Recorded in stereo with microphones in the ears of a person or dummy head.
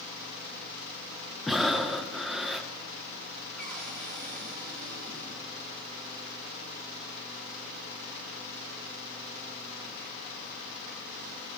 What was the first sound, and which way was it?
Breathing, 5° right (ahead or behind).